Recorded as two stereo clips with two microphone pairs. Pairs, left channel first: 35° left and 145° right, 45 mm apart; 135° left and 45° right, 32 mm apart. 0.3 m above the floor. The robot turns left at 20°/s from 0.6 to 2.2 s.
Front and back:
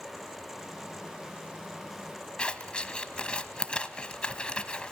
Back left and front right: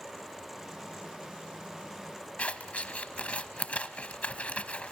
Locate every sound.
2.4 s scissors: 100° left, 1.1 m